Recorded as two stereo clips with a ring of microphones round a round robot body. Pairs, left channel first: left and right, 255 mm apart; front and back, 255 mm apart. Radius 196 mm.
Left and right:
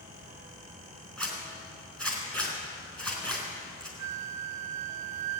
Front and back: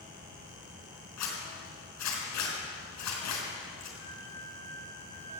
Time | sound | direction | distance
1.2 | a zipper | 5° left | 4 m
4.0 | a flute | 85° right | 0.6 m